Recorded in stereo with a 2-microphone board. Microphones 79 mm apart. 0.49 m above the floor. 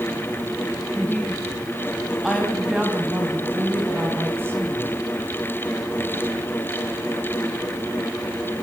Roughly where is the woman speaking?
Left.